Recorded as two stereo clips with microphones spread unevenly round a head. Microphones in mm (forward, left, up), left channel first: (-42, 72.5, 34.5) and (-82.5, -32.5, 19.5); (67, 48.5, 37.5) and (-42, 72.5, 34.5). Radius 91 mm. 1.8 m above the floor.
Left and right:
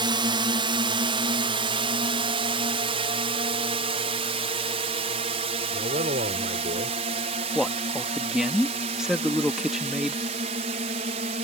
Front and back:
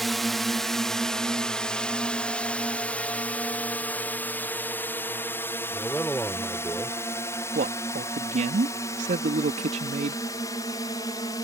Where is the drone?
100° right; by 11.4 s 80° right.